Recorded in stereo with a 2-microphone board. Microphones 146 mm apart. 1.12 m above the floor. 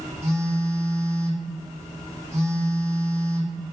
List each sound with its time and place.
0.2 s a phone buzzing: 45° right (ahead or behind), 1.0 m